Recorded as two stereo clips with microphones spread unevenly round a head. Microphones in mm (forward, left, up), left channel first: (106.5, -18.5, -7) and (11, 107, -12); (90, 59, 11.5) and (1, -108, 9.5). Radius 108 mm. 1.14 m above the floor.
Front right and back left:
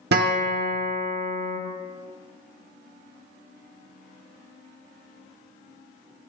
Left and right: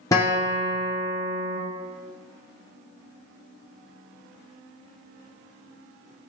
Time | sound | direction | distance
0.1 | a guitar | 140° left | 0.8 m